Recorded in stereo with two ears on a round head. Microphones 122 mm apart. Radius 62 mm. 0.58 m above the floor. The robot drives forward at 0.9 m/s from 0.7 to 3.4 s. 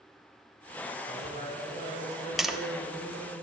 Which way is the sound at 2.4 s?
Centre (ahead or behind).